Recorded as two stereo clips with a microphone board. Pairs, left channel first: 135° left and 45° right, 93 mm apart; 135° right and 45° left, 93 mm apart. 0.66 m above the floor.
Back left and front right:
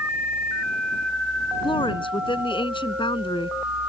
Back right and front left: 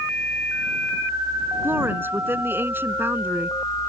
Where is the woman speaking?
110° left.